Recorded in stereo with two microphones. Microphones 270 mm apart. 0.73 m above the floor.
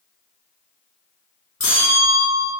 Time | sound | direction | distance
1.6 | a bell | 55° left (ahead or behind) | 0.9 m